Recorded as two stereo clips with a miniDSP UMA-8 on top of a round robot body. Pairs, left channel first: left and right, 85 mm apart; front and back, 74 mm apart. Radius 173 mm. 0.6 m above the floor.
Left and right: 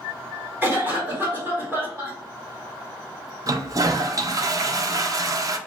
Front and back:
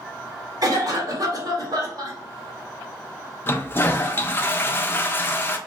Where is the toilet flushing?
55° right, 0.6 m.